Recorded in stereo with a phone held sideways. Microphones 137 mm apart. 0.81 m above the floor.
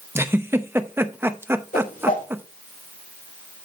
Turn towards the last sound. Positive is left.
turn(degrees=80)